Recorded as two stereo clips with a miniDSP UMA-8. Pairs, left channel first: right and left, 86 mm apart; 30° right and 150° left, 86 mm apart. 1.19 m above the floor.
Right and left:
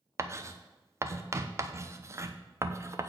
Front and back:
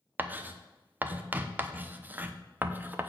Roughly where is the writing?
Left.